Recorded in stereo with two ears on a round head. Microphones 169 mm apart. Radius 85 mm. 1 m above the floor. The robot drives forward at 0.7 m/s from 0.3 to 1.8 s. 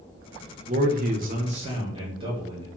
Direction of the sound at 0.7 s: 40° right (ahead or behind).